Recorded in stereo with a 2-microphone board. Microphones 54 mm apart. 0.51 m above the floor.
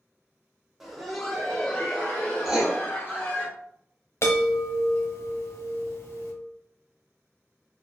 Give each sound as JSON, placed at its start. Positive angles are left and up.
{"t": 0.8, "sound": "laughter", "side_deg": -5, "distance_m": 0.9}
{"t": 2.5, "sound": "writing", "side_deg": -5, "distance_m": 1.1}
{"t": 4.2, "sound": "a chime", "side_deg": 60, "distance_m": 0.8}